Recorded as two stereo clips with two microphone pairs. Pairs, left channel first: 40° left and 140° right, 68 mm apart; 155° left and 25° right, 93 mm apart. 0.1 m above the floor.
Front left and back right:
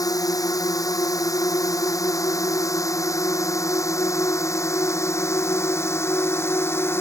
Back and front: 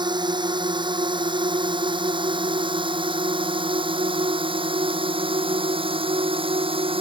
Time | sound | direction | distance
0.0 | a drone | 10° left | ?